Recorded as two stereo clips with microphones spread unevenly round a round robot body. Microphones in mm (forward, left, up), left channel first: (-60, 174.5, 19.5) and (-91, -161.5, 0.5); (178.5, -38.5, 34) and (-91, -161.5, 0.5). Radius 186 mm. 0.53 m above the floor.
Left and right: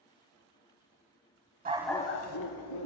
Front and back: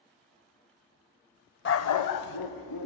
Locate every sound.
1.6 s a dog barking: 25° right, 0.6 m; by 2.9 s 55° left, 1.3 m